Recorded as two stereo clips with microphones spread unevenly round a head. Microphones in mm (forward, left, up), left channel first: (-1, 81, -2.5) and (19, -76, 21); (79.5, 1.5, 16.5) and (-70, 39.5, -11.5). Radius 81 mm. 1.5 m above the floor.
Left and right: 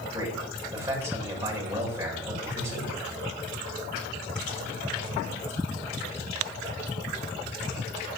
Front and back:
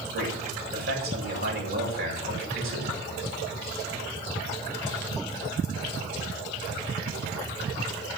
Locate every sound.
0.1 s a man speaking: 160° right, 7 m